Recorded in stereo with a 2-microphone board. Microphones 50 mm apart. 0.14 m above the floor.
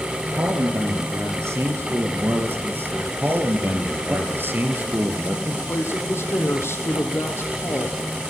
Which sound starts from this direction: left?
A woman speaking, at 5.5 s.